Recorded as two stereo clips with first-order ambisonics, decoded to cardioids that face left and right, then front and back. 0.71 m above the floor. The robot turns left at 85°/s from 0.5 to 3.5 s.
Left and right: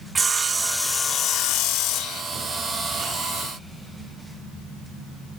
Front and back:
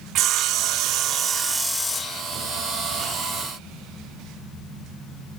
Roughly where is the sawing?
Behind.